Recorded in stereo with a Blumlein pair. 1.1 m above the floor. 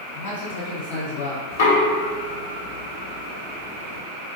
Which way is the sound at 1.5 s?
55° left.